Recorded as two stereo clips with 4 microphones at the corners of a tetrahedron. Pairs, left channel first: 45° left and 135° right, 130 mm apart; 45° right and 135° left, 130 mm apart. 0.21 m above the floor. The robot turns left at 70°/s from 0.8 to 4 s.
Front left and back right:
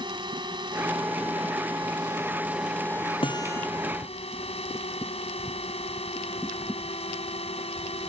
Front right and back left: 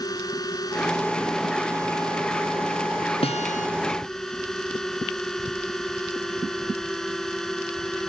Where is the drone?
95° right; by 8.1 s 40° left.